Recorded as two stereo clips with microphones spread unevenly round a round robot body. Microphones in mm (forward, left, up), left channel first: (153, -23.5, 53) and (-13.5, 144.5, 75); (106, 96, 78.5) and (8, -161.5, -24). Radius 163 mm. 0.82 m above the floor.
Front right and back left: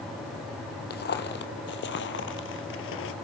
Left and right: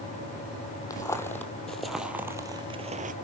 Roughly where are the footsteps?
Ahead.